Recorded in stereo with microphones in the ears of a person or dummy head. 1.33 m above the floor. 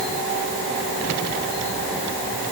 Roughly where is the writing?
I don't hear writing.